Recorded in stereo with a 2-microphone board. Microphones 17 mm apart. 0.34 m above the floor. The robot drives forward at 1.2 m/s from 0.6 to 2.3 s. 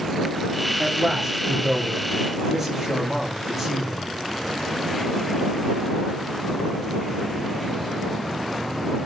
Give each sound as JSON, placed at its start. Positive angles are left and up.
{"t": 0.8, "sound": "a man speaking", "side_deg": -25, "distance_m": 7.0}